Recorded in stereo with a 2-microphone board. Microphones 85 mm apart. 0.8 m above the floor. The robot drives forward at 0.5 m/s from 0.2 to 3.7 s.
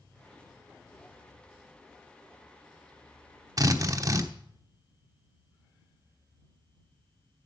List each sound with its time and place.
3.6 s a drill: 45° right (ahead or behind), 1.0 m